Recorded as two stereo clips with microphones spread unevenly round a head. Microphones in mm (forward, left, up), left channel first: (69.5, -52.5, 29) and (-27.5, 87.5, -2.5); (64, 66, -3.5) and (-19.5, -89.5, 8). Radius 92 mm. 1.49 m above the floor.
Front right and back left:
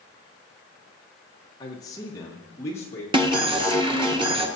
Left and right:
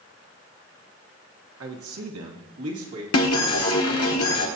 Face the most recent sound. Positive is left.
turn(degrees=60)